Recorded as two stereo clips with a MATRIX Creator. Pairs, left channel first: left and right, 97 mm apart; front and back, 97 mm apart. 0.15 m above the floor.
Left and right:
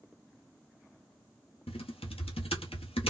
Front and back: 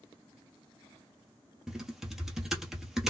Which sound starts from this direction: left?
Typing on a keyboard, at 1.7 s.